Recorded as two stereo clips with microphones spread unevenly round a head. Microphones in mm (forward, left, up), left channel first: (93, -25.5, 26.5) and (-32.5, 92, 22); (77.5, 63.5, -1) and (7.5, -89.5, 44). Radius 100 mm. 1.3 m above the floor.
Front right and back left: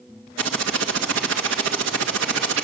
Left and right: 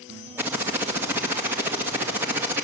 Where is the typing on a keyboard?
165° left, 1.9 m.